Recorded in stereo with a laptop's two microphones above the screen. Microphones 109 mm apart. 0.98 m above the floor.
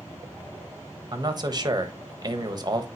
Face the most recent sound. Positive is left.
turn(degrees=-40)  # may be behind; listen again after turning